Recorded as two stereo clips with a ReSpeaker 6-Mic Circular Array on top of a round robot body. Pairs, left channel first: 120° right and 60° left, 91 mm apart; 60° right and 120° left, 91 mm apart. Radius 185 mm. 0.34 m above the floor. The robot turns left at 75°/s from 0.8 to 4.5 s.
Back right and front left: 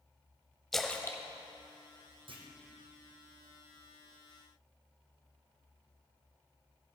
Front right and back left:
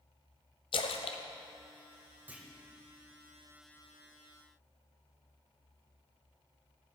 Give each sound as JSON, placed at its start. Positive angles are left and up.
{"t": 0.7, "sound": "a splash", "azimuth_deg": -35, "distance_m": 0.8}
{"t": 2.3, "sound": "a clunk", "azimuth_deg": 50, "distance_m": 1.8}